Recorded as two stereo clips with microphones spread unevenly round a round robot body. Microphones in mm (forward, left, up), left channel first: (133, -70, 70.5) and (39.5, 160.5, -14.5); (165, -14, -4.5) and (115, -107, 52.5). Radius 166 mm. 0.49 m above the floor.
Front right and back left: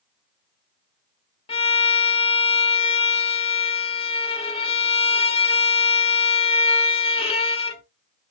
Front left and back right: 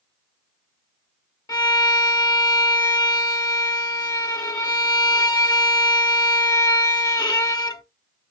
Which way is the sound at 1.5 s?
Straight ahead.